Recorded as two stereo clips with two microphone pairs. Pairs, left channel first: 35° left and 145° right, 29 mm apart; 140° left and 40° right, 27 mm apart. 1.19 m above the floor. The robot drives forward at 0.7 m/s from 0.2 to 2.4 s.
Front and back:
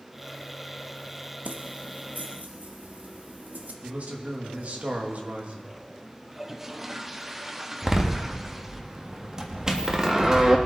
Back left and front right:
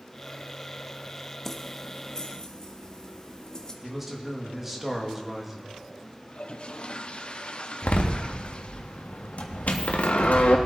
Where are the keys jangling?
145° right, 0.8 m; by 3.7 s 160° right, 1.3 m.